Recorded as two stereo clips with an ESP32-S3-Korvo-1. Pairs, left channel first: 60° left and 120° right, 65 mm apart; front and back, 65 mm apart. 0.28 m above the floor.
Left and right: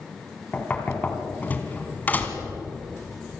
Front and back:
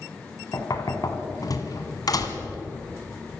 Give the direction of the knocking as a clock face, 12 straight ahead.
12 o'clock.